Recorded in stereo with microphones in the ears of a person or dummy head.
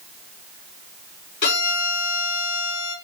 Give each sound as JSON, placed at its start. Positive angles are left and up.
{"t": 1.4, "sound": "a violin", "side_deg": 60, "distance_m": 5.5}